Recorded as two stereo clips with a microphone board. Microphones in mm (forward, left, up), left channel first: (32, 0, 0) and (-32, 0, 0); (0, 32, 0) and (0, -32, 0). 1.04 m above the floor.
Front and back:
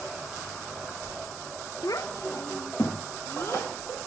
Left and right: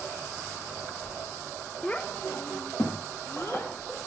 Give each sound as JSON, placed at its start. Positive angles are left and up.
{"t": 1.8, "sound": "a child speaking", "azimuth_deg": 15, "distance_m": 0.5}